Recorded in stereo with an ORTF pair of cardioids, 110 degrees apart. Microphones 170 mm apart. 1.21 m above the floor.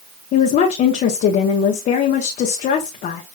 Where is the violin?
I don't hear a violin.